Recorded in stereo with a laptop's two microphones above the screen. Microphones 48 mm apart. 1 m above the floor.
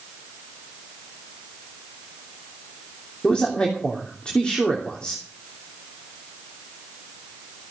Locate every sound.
3.2 s a man speaking: 20° left (ahead or behind), 3 m